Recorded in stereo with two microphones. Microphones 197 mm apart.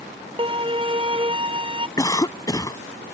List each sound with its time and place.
0.4 s a violin: 25° right (ahead or behind)
2.0 s a cough: 20° left (ahead or behind)